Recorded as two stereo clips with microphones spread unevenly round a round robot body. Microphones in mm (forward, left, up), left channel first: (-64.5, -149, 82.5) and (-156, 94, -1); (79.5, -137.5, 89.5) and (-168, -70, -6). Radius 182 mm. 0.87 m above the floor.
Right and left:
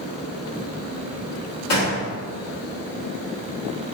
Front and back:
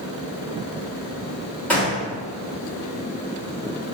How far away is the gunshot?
About 1.2 m.